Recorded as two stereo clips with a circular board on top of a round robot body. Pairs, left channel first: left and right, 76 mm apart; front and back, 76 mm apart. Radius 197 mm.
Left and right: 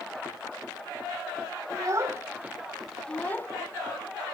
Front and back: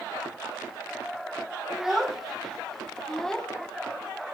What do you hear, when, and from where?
1.7 s a child speaking: 95° right, 1.1 m; by 3.5 s 75° left, 1.0 m